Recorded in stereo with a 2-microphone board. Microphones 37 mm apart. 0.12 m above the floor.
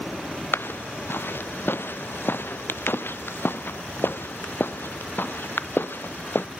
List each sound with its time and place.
0.5 s footsteps: 90° left; by 6.4 s 75° left (ahead or behind)